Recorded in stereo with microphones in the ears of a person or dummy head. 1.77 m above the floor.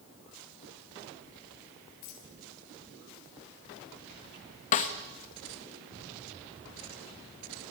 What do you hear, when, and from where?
2.0 s a dropped coin: 65° left (ahead or behind), 5 m
4.7 s a snare drum: 40° left (ahead or behind), 1.3 m